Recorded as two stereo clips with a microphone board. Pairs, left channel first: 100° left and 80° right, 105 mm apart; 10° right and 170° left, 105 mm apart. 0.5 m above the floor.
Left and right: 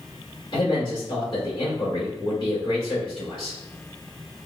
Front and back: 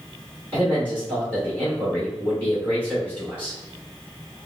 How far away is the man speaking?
About 1.8 m.